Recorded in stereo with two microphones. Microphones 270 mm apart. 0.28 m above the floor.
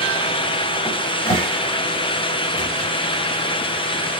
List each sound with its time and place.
0.8 s a cupboard door: 30° left (ahead or behind), 1.6 m